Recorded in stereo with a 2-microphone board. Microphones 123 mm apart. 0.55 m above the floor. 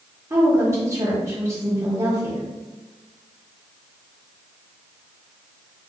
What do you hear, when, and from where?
0.3 s a woman speaking: 25° right (ahead or behind), 1.1 m